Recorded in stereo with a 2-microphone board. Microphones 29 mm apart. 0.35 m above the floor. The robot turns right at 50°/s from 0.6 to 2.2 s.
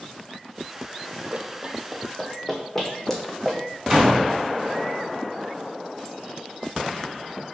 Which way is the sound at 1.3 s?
50° right (ahead or behind).